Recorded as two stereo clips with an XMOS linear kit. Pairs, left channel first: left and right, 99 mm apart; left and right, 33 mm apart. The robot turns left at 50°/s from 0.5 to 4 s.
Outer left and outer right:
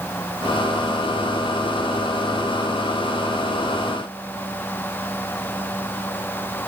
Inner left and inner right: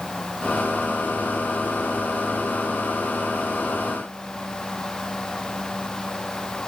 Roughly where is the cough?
I don't hear a cough.